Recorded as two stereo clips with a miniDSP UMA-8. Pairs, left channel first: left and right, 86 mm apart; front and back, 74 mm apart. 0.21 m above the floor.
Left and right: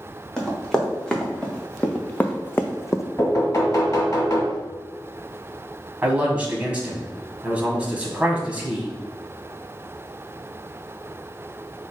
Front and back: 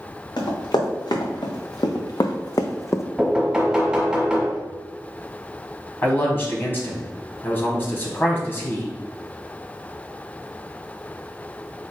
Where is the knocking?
105° left, 1.4 m.